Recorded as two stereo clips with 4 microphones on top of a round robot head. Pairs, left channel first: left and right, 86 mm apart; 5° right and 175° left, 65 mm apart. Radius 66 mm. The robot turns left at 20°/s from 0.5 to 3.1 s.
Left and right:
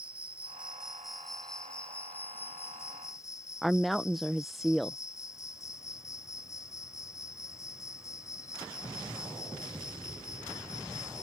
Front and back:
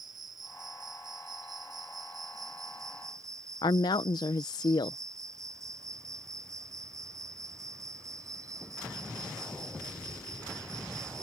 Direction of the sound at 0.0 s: 165° right.